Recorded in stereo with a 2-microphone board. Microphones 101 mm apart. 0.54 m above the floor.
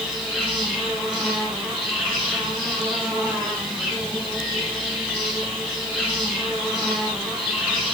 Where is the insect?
5° left (ahead or behind), 6.5 m.